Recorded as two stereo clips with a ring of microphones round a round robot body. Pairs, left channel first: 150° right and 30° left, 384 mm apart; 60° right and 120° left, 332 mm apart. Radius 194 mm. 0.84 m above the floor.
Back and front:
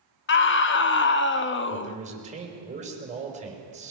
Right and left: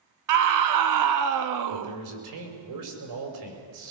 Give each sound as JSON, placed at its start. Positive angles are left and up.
{"t": 0.3, "sound": "a scream", "azimuth_deg": 150, "distance_m": 1.0}
{"t": 1.7, "sound": "a man speaking", "azimuth_deg": 100, "distance_m": 5.0}